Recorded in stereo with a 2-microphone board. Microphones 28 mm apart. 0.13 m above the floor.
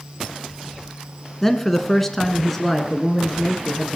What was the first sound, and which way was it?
A man speaking, 10° left (ahead or behind).